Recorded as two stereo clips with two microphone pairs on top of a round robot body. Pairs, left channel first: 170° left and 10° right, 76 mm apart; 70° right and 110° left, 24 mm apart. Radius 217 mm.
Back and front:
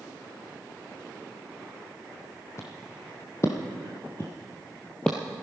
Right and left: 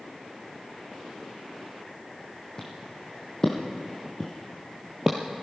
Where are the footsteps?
140° right, 1.6 m; by 5.2 s 30° left, 0.5 m.